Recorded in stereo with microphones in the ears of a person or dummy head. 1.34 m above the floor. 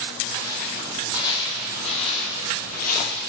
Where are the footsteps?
20° left (ahead or behind), 3.5 m; by 3.2 s 55° left (ahead or behind), 2.5 m.